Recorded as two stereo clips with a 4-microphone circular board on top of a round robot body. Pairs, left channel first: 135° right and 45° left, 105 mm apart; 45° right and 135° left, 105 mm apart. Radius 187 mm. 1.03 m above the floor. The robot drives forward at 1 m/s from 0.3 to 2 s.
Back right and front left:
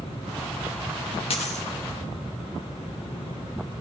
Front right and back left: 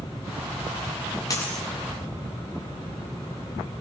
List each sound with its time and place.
1.3 s a dropped coin: 105° right, 0.5 m; by 1.7 s 135° right, 0.7 m